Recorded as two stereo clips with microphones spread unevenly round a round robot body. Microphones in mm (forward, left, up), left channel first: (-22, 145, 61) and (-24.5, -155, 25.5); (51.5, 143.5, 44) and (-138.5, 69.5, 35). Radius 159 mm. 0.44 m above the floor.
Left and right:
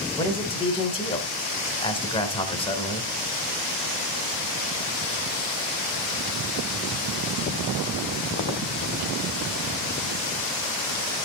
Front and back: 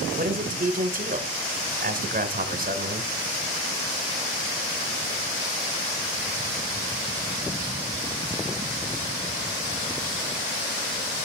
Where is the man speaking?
165° left, 1.9 m.